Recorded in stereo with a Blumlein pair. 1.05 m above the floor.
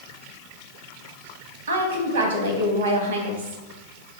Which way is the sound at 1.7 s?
65° right.